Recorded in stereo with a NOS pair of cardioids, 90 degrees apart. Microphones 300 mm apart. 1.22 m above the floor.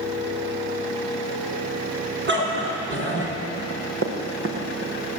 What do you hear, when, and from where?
2.3 s a dog barking: 40° right, 7 m; by 3.4 s 45° right, 6.5 m
3.6 s running footsteps: 45° right, 6 m